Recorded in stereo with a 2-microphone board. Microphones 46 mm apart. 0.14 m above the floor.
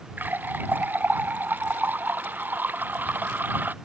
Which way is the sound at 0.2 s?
40° right (ahead or behind).